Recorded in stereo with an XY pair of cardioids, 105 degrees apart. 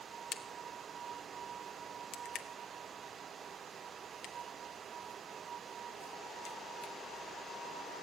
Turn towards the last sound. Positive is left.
turn(degrees=70)